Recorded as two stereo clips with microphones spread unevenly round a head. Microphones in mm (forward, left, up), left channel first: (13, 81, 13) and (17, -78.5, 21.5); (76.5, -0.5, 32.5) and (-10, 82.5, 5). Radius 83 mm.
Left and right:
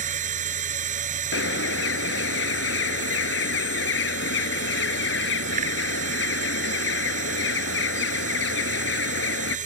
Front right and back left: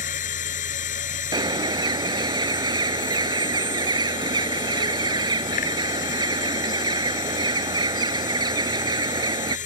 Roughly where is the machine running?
Ahead right.